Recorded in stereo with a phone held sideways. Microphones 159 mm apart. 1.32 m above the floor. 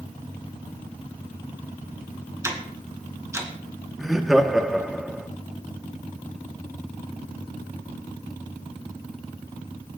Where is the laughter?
Centre (ahead or behind), 1.2 m.